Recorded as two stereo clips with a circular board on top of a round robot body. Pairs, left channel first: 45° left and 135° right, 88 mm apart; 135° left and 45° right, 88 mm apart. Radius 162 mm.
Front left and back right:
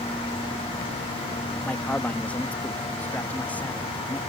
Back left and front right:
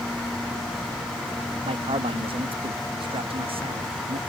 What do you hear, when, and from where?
1.6 s a man speaking: 30° right